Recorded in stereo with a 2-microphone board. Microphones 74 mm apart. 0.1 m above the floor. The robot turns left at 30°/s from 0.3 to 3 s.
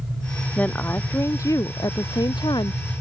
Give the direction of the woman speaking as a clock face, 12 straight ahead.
7 o'clock.